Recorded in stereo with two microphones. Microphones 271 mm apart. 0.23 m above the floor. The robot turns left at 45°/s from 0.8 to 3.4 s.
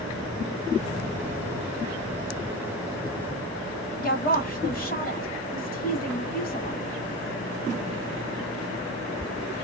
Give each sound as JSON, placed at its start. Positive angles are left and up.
{"t": 4.0, "sound": "a woman speaking", "side_deg": 30, "distance_m": 1.4}